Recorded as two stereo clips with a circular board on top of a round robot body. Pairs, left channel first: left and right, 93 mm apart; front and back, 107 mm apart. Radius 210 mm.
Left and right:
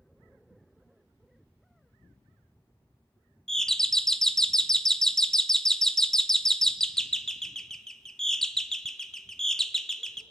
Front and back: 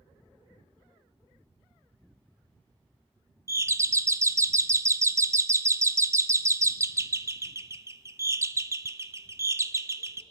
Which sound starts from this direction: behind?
A doorbell, at 3.5 s.